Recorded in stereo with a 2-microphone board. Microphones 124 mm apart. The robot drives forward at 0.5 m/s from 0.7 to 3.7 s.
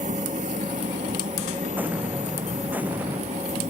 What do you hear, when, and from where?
0.0 s an engine running: 80° right; by 3.7 s 65° right (ahead or behind)
1.8 s an explosion: 15° right (ahead or behind)